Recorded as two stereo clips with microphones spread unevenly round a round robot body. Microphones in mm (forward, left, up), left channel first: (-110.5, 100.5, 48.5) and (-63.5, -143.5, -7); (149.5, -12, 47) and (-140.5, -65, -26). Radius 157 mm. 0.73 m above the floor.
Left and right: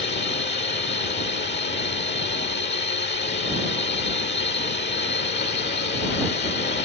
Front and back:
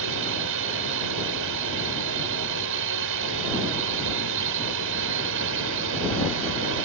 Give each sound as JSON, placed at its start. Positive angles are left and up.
{"t": 0.0, "sound": "a drone", "azimuth_deg": 150}